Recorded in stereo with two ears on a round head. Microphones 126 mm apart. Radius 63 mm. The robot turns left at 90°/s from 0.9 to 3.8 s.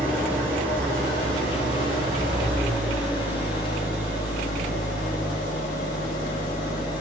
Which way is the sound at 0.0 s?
15° right.